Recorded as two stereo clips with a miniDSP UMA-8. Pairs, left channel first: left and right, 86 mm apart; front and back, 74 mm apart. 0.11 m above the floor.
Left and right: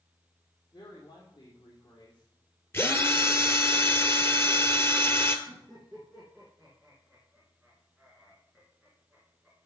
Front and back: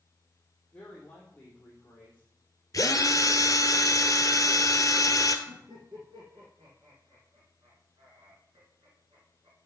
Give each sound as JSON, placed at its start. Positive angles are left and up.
{"t": 0.7, "sound": "a woman speaking", "azimuth_deg": 70, "distance_m": 3.0}
{"t": 2.7, "sound": "a drill", "azimuth_deg": 30, "distance_m": 1.0}
{"t": 5.5, "sound": "laughter", "azimuth_deg": 180, "distance_m": 4.5}